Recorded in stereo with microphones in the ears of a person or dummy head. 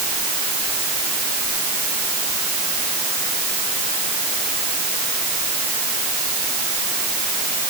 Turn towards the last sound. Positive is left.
No sound to turn to.